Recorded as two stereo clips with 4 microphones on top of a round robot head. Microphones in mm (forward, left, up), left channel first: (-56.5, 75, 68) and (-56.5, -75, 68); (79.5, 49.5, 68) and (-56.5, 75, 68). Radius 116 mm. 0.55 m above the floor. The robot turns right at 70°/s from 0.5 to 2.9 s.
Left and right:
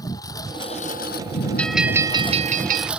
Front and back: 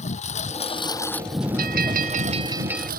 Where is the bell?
170° left; by 2.9 s 95° right.